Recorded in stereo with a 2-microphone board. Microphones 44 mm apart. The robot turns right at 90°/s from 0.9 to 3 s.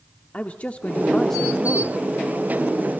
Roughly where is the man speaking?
Behind left.